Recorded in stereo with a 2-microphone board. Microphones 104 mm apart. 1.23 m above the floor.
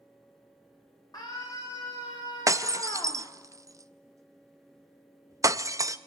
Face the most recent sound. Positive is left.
turn(degrees=-30)  # may be behind; listen again after turning